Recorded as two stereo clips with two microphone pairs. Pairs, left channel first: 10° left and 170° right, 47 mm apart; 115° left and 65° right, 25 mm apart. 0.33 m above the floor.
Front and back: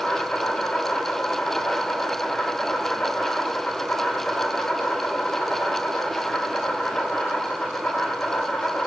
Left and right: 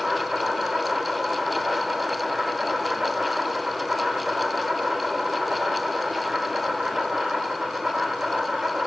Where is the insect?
10° right, 2.5 m.